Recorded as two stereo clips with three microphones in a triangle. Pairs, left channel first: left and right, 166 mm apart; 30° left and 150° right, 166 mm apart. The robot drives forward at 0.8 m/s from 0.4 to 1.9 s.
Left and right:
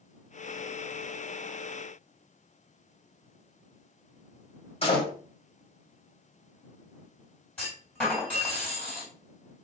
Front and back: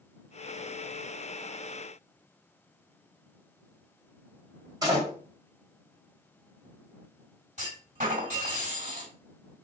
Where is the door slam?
145° left, 1.5 m.